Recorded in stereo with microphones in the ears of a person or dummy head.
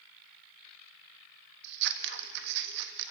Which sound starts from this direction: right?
Scissors, at 1.6 s.